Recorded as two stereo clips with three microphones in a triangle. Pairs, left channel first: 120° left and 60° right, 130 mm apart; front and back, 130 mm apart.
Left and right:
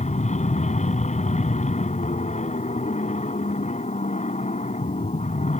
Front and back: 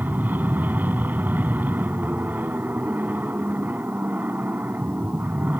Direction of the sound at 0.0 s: 105° left.